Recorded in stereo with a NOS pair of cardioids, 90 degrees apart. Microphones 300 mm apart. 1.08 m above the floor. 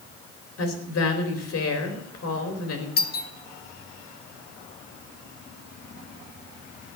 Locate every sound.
0.6 s a woman speaking: 60° left, 4 m
3.0 s a doorbell: 35° left, 1.5 m